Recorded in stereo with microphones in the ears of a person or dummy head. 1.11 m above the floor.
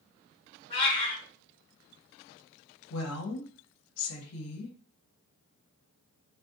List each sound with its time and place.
0.7 s a cat meowing: 30° left (ahead or behind), 1.9 m
2.9 s a woman speaking: 75° left (ahead or behind), 0.9 m